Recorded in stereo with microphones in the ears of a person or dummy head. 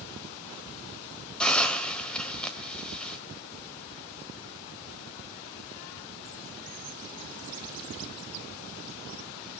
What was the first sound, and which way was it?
A hiss, 10° left (ahead or behind).